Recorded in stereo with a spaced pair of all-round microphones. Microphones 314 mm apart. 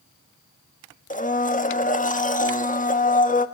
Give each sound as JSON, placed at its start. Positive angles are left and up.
{"t": 1.1, "sound": "a blender", "side_deg": 25, "distance_m": 1.2}